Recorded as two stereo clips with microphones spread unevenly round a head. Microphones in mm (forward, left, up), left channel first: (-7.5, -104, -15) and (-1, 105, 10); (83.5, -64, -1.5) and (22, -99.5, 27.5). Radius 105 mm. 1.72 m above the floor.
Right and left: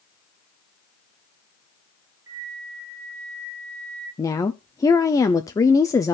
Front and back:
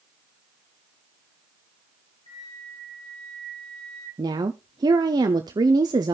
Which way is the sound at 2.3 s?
15° left.